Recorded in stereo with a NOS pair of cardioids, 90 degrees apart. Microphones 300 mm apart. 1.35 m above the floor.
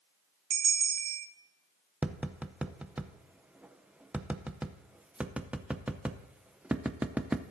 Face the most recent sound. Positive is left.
turn(degrees=-5)